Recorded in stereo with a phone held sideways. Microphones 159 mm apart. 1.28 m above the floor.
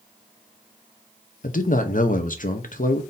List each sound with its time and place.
1.4 s a man speaking: 60° left (ahead or behind), 0.7 m